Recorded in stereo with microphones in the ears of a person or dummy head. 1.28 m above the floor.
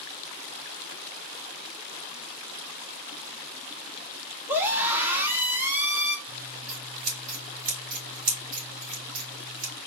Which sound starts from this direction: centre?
A scream, at 4.5 s.